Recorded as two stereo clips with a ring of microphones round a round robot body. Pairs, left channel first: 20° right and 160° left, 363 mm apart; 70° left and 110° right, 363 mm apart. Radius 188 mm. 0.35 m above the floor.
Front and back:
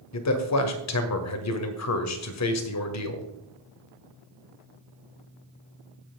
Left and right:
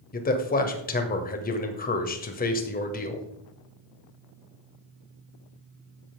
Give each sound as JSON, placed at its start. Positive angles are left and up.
{"t": 0.1, "sound": "a man speaking", "azimuth_deg": 5, "distance_m": 1.8}